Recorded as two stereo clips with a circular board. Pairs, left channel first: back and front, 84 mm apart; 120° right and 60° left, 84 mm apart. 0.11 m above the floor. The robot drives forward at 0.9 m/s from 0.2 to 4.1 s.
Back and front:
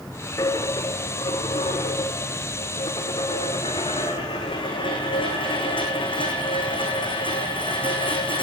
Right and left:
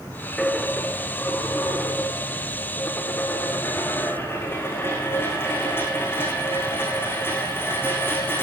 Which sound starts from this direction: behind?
A dropped coin, at 0.4 s.